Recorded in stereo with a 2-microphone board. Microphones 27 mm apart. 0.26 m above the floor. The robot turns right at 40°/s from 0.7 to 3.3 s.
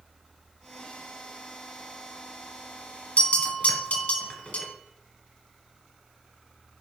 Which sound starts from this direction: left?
A bell, at 3.2 s.